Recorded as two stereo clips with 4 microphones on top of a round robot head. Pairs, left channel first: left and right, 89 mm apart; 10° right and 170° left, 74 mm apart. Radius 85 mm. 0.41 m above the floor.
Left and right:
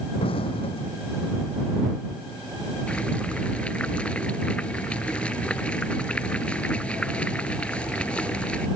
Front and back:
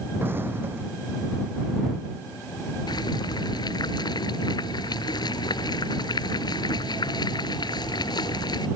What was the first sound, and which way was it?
An explosion, 110° left.